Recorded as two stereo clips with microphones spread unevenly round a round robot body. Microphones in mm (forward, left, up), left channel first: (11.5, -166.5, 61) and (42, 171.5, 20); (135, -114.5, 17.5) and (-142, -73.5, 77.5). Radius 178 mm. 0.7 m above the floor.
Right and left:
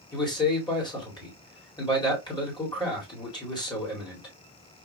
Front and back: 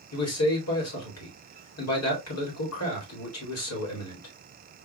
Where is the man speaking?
15° right, 2.5 m.